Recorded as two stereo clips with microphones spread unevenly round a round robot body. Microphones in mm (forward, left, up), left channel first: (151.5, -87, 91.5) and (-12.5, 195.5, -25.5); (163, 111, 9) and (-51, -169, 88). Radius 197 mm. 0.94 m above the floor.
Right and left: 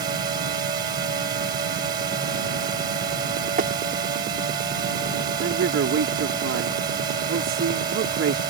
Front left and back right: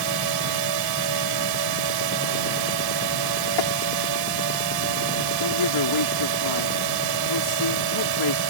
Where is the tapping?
60° left.